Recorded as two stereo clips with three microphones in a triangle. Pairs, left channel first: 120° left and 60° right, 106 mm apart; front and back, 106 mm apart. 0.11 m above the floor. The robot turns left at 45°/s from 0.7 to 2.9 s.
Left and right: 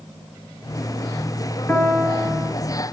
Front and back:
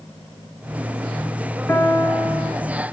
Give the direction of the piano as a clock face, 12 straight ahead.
10 o'clock.